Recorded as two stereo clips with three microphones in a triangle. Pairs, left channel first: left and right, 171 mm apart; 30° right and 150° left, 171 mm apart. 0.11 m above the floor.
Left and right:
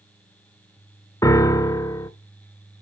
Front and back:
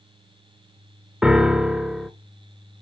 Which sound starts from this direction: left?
A piano, at 1.2 s.